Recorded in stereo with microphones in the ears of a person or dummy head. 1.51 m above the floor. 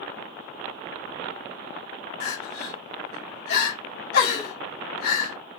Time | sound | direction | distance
2.2 | crying | 75° left (ahead or behind) | 2.5 m